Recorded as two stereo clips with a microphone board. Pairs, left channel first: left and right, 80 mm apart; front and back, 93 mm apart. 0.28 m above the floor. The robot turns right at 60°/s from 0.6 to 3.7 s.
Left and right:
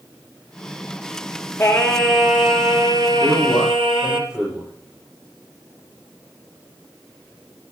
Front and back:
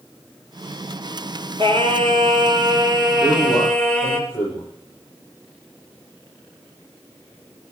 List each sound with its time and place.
1.6 s singing: 160° left, 2.5 m; by 4.2 s 75° right, 2.5 m
3.2 s a man speaking: 30° right, 8.5 m; by 4.7 s straight ahead, 8.5 m